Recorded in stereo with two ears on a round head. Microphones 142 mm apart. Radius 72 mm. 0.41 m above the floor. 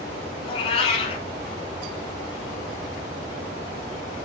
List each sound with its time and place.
0.4 s a cat meowing: 35° left (ahead or behind), 1.1 m